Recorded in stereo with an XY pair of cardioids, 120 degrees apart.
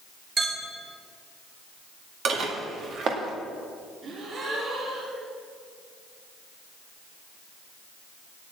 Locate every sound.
0.4 s a clink: 35° right, 3.5 m
2.2 s dishes clattering: 55° right, 1.9 m
4.0 s a gasp: 50° right, 2.5 m